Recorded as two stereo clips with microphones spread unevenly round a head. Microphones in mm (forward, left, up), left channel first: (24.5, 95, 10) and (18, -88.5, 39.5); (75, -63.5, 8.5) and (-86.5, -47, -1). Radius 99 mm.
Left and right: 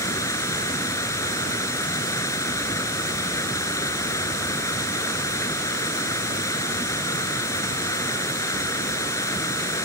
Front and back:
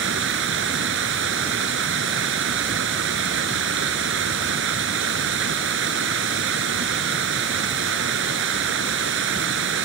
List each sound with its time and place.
0.0 s running water: 165° left